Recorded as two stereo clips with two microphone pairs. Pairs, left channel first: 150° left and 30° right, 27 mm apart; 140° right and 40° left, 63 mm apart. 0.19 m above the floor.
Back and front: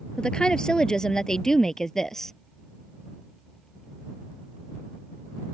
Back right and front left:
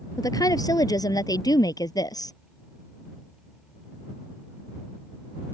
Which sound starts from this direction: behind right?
A woman speaking, at 0.2 s.